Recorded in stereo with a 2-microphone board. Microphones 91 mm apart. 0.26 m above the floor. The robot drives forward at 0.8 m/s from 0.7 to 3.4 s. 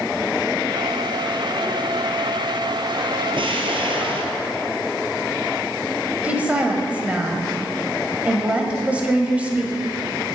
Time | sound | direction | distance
3.4 | an explosion | 80° right | 1.8 m
6.2 | a woman speaking | 15° right (ahead or behind) | 1.4 m